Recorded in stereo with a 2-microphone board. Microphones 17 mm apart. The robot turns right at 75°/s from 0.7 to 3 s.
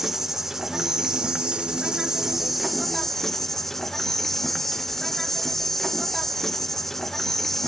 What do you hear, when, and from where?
0.0 s an insect: 155° right, 0.7 m; by 7.7 s 20° left, 0.7 m